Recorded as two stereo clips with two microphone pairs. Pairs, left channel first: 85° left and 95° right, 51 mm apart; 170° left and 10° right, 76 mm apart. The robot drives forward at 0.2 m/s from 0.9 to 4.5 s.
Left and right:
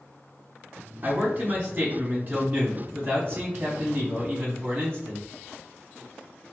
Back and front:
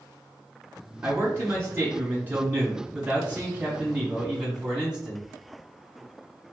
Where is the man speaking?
55° right, 1.7 m; by 5.3 s 85° right, 1.5 m.